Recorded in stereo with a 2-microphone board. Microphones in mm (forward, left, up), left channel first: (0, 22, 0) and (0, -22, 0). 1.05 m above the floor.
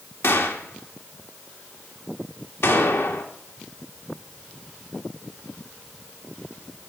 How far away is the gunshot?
About 1.9 m.